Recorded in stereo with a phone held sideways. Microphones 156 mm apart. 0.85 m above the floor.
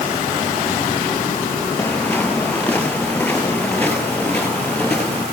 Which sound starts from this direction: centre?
Footsteps, at 1.8 s.